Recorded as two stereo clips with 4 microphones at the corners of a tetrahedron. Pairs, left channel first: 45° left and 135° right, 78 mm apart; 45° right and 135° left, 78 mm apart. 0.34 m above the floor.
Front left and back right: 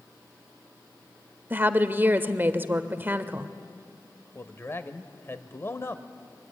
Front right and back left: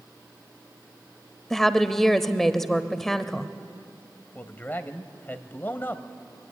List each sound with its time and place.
1.5 s a woman speaking: 125° right, 1.0 m
4.3 s a man speaking: 5° left, 1.3 m